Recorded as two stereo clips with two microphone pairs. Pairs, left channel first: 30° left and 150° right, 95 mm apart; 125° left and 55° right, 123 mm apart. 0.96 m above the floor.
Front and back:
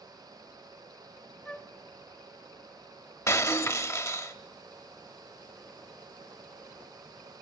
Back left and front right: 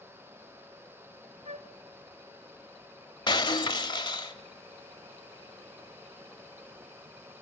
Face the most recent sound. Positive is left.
turn(degrees=80)